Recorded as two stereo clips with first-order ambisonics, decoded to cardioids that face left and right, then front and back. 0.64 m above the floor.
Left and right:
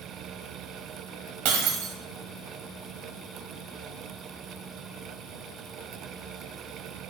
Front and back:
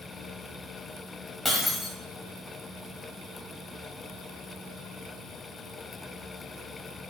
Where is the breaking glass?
85° right, 1.8 m.